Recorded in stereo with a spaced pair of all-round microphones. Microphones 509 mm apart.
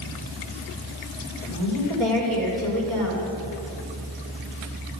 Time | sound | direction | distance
1.4 | a woman speaking | 75° right (ahead or behind) | 4.5 m